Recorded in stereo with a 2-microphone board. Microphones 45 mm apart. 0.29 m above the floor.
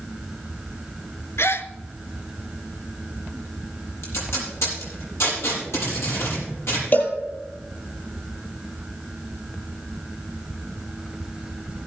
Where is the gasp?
70° left (ahead or behind), 0.8 m.